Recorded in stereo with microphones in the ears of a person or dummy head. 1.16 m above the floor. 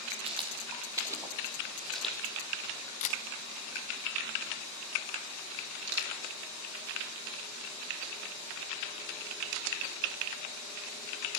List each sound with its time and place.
0.2 s footsteps: 30° right (ahead or behind), 3 m; by 2.9 s 15° left (ahead or behind), 3 m
3.0 s a camera shutter: 40° left (ahead or behind), 1.4 m
5.9 s crushing: 55° right (ahead or behind), 3.5 m